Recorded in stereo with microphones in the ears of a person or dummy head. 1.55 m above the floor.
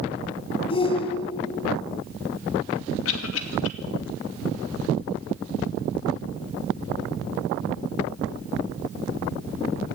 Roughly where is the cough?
Left.